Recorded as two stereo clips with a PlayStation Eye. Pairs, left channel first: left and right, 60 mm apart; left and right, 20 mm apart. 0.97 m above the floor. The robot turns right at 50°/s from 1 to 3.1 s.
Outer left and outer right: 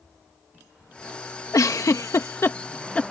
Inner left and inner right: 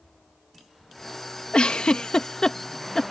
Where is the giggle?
60° left (ahead or behind); by 3.1 s 10° left (ahead or behind).